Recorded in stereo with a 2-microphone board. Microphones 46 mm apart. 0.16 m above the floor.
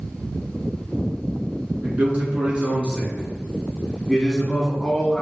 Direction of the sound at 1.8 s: 40° right (ahead or behind).